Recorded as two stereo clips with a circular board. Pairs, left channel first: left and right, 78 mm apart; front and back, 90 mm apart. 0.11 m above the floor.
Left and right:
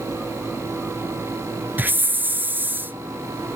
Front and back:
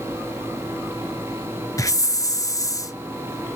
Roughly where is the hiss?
Ahead right.